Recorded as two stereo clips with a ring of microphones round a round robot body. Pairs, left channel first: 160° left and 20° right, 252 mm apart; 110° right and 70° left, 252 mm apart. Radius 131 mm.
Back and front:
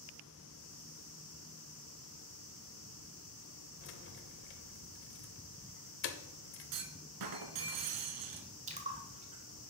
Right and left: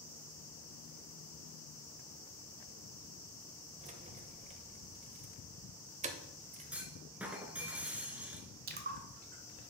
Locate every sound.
3.8 s keys jangling: 125° left, 0.8 m
6.7 s a clunk: 20° right, 0.9 m
8.7 s a splash: 30° left, 1.2 m